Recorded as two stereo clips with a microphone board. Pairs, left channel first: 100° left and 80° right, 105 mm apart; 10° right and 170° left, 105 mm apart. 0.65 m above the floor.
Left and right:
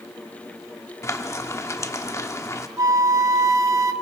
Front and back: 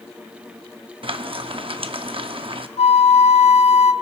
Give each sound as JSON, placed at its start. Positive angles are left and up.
{"t": 1.0, "sound": "frying", "azimuth_deg": 155, "distance_m": 0.8}
{"t": 2.8, "sound": "a flute", "azimuth_deg": -15, "distance_m": 0.6}